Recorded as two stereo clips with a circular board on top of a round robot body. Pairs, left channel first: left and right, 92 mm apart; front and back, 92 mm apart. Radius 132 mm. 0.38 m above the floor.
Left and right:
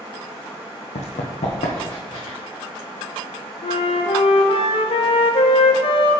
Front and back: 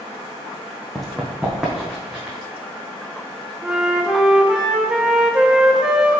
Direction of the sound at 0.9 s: 90° left.